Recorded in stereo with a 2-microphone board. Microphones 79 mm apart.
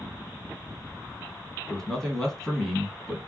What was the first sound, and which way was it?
A man speaking, 5° left (ahead or behind).